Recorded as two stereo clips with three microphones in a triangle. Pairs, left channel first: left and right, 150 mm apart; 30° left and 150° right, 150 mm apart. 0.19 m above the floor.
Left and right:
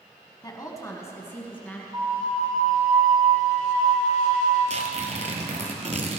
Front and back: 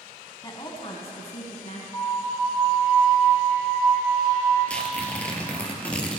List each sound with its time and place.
0.4 s a woman speaking: 60° left, 1.8 m; by 1.8 s 15° left, 2.5 m
1.9 s a flute: 35° right, 4 m
4.7 s tearing paper: 50° right, 1.6 m